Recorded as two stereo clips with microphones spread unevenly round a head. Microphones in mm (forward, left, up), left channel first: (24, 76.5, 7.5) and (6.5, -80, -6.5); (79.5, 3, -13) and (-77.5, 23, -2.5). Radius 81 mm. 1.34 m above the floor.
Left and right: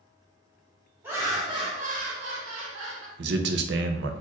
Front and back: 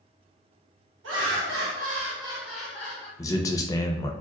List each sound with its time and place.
1.0 s laughter: 175° right, 1.8 m; by 3.1 s 75° right, 1.5 m
3.2 s a man speaking: 80° right, 0.6 m